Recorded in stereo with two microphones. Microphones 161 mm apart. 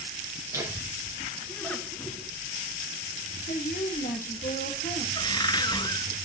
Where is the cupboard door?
25° left (ahead or behind), 0.6 m.